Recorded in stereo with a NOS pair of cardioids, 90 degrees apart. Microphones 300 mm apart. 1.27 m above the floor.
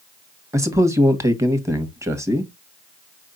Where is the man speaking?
10° right, 1.6 m.